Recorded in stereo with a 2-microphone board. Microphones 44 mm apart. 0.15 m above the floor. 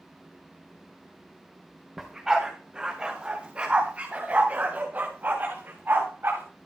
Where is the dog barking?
5° right (ahead or behind), 5 m; by 6.4 s 50° right (ahead or behind), 6.5 m.